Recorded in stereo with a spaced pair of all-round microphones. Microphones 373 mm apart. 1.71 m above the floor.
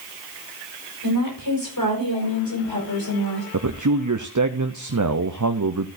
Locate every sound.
1.0 s a woman speaking: 60° left (ahead or behind), 5.5 m; by 3.4 s 70° left (ahead or behind), 7 m
3.5 s a man speaking: 50° right (ahead or behind), 0.7 m